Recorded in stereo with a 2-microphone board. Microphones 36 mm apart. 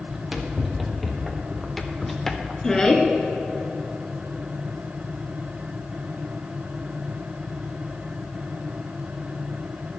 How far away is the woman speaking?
About 1.8 m.